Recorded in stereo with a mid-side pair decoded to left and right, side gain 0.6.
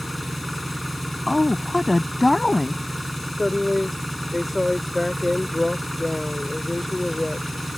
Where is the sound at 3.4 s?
10° left.